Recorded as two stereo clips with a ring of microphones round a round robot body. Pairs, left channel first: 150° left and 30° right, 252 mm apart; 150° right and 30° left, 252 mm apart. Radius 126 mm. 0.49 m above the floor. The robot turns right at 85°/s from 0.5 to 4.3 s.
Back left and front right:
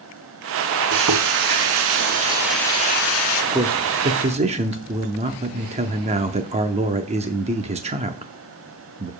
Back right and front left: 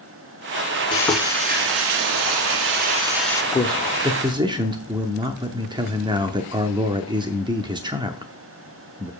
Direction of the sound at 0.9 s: 80° right.